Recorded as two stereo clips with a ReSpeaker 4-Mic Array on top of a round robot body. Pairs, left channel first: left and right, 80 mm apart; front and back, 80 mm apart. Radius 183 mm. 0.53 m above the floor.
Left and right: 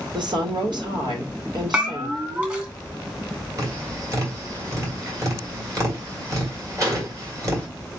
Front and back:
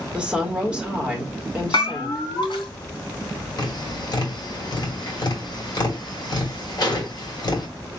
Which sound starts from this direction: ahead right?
Tapping, at 3.6 s.